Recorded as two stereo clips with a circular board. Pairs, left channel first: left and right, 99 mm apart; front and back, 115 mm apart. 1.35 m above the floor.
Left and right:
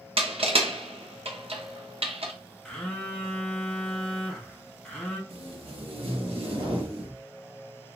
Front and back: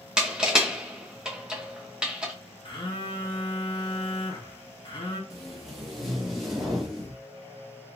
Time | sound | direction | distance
0.2 | crushing | 100° right | 0.7 m
2.6 | a phone buzzing | 10° left | 0.7 m
5.3 | tape being pulled | 90° right | 1.0 m